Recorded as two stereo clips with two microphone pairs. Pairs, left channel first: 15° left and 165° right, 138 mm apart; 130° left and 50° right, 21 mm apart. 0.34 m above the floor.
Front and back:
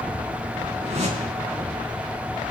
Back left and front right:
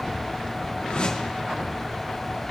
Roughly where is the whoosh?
Behind left.